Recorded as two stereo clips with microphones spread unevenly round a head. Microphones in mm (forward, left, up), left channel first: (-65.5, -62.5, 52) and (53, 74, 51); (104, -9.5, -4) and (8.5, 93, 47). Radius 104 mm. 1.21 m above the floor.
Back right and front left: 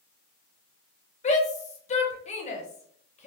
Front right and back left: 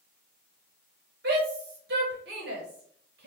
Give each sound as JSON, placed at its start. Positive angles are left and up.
{"t": 1.2, "sound": "a shout", "azimuth_deg": 175, "distance_m": 1.0}